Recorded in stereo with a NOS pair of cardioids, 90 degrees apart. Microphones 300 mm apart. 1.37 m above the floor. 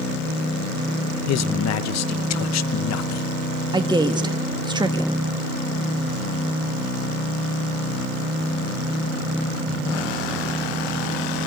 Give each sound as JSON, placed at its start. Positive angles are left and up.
{"t": 1.3, "sound": "a man speaking", "azimuth_deg": 60, "distance_m": 1.1}
{"t": 3.7, "sound": "a woman speaking", "azimuth_deg": -15, "distance_m": 1.8}